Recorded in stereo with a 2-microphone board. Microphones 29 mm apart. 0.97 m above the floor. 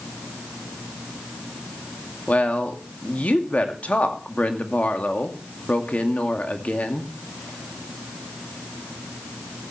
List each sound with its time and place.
2.3 s a woman speaking: 55° left (ahead or behind), 2 m